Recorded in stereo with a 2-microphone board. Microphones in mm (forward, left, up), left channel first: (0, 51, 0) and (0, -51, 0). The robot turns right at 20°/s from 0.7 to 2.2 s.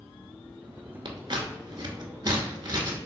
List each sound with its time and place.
1.1 s scissors: 55° right (ahead or behind), 0.6 m; by 3.0 s 45° right (ahead or behind), 0.6 m